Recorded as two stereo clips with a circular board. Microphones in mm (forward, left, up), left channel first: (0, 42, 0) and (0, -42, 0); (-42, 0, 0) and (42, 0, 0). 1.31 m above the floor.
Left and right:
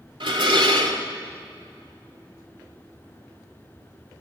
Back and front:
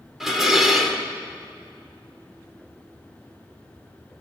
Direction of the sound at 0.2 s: 85° right.